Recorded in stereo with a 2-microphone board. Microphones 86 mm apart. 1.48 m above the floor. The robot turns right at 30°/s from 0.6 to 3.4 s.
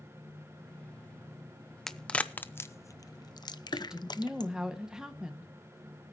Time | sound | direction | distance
1.9 | a crack | 5° left (ahead or behind) | 0.7 m
3.7 | a woman speaking | 10° right (ahead or behind) | 1.6 m